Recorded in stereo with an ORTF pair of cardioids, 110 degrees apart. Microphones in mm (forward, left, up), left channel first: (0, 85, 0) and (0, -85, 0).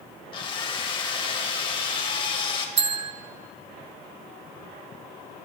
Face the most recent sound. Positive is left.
turn(degrees=-40)